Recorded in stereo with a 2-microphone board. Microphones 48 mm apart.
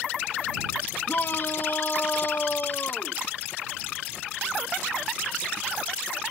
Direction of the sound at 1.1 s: 45° left (ahead or behind).